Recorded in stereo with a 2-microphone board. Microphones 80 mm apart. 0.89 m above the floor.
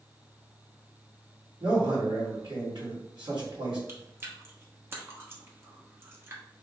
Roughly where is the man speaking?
Right.